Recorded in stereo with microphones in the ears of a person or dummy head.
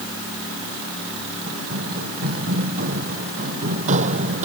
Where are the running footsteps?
55° right (ahead or behind); by 4.5 s 40° right (ahead or behind).